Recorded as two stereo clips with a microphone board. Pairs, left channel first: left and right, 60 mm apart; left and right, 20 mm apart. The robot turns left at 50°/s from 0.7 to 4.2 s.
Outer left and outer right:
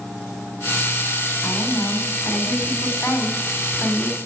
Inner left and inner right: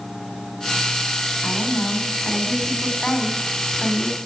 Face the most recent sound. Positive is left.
turn(degrees=-5)